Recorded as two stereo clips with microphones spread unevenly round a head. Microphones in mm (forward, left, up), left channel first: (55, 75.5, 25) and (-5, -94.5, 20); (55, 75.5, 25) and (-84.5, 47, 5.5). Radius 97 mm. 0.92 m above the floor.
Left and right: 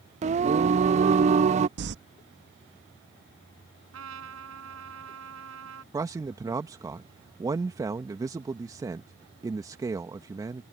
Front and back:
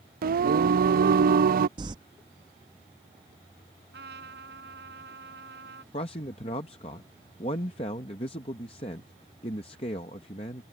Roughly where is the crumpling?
Right.